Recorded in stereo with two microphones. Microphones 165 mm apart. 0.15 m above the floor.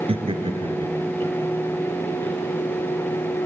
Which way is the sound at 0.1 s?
35° right (ahead or behind).